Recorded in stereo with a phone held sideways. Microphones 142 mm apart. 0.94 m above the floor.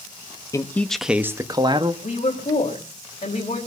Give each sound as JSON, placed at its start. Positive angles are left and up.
{"t": 0.5, "sound": "a man speaking", "side_deg": 20, "distance_m": 1.0}
{"t": 2.0, "sound": "a woman speaking", "side_deg": 45, "distance_m": 4.0}